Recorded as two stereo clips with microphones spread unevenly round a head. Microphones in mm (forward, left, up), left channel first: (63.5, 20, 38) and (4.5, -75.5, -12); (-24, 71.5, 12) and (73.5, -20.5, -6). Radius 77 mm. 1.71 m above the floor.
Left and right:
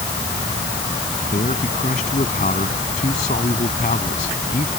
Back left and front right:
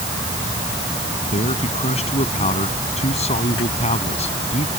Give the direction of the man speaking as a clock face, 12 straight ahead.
9 o'clock.